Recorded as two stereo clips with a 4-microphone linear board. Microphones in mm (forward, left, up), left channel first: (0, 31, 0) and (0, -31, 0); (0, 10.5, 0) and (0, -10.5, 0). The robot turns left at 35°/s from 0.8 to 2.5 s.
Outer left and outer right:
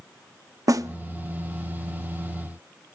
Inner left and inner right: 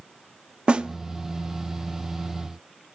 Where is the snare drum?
60° right (ahead or behind), 0.6 m; by 0.9 s 65° right (ahead or behind), 0.6 m.